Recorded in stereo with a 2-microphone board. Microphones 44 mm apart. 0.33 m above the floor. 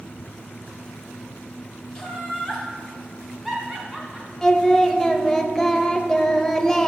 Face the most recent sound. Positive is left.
turn(degrees=10)  # may be behind; listen again after turning